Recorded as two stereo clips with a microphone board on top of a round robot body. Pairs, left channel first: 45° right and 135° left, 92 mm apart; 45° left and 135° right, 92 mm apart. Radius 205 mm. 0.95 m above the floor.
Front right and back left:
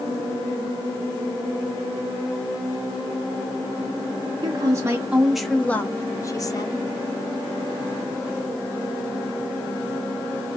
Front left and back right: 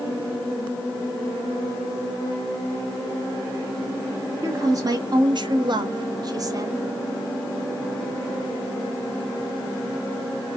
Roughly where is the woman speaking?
Behind.